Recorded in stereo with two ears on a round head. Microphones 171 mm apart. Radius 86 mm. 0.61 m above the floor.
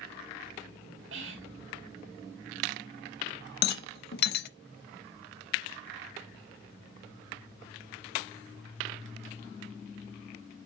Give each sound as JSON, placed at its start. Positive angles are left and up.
{"t": 1.1, "sound": "whispering", "side_deg": -65, "distance_m": 3.0}
{"t": 3.6, "sound": "a rattle", "side_deg": 55, "distance_m": 0.6}